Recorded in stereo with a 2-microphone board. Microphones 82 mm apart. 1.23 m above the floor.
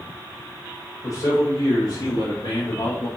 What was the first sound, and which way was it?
A man speaking, 45° left (ahead or behind).